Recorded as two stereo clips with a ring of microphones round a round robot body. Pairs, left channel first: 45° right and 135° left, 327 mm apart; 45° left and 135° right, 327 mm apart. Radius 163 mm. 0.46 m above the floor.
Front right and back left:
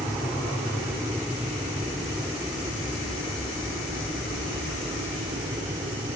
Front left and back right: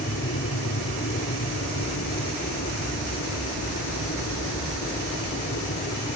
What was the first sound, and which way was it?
An aircraft, 45° left.